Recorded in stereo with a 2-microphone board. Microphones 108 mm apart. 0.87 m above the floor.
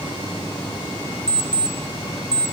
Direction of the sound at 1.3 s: 40° right (ahead or behind).